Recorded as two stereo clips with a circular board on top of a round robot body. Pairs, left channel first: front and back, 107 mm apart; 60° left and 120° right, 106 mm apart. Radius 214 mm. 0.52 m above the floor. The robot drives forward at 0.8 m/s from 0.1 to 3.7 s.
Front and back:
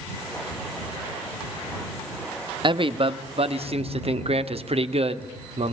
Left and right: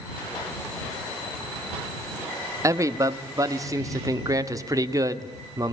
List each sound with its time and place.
2.6 s a man speaking: 170° right, 1.4 m; by 5.7 s 175° right, 2 m